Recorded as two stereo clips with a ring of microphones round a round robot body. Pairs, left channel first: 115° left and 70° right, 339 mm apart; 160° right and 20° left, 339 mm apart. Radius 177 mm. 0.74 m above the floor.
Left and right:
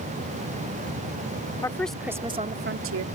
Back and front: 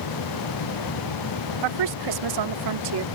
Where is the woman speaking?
30° left; by 3.0 s 25° right.